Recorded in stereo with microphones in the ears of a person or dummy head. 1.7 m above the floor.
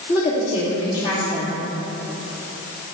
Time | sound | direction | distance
0.1 | a woman speaking | 35° left (ahead or behind) | 3 m